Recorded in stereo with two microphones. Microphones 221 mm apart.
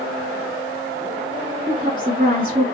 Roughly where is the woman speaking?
Right.